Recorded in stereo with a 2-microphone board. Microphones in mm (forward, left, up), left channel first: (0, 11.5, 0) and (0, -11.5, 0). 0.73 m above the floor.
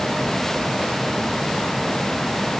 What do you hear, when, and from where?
Only background noise.